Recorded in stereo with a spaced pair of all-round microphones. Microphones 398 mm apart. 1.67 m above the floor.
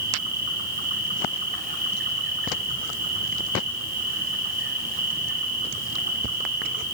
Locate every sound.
0.0 s an insect: 70° right (ahead or behind), 9.5 m